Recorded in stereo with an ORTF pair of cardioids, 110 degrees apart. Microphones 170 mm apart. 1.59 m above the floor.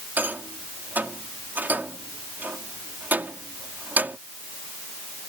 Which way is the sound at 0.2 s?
10° right.